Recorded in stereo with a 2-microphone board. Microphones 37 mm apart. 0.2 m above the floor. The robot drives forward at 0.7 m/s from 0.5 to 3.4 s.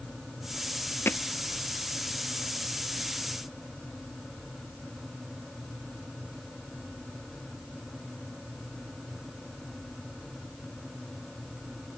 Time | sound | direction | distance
1.1 | hammering | 75° left (ahead or behind) | ?